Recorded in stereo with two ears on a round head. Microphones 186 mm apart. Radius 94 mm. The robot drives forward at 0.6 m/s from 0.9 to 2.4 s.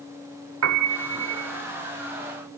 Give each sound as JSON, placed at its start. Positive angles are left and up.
{"t": 0.6, "sound": "a piano", "side_deg": -80, "distance_m": 2.5}